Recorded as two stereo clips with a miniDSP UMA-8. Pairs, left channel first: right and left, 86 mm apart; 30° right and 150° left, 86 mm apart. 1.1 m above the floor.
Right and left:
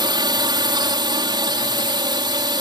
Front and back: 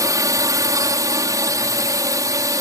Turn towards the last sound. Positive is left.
turn(degrees=110)